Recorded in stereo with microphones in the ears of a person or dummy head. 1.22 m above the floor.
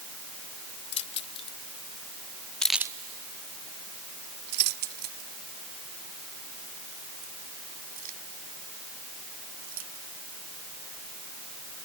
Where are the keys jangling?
30° left (ahead or behind); by 10.0 s 40° right (ahead or behind).